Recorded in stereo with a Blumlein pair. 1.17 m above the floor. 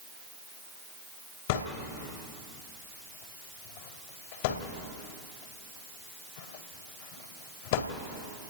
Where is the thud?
50° left, 2 m.